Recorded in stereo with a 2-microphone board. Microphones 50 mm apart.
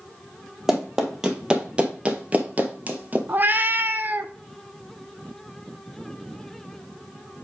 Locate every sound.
0.7 s running footsteps: 10° right (ahead or behind), 1.7 m; by 3.2 s 30° right (ahead or behind), 1.3 m
3.3 s a cat meowing: 35° right (ahead or behind), 0.6 m